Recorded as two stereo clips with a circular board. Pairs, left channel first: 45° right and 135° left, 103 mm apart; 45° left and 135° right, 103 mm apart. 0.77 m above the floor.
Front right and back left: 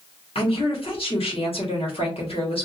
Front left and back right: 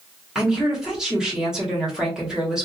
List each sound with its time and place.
0.3 s a woman speaking: 50° right, 1.6 m